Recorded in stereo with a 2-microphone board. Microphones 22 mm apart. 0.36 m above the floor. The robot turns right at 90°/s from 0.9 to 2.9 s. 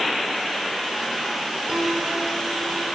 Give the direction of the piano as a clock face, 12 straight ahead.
5 o'clock.